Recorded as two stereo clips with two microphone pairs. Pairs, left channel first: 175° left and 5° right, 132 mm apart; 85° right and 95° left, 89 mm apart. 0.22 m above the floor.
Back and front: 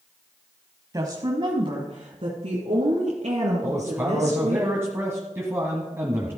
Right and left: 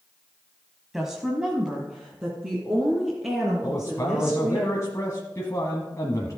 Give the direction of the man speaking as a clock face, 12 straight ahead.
2 o'clock.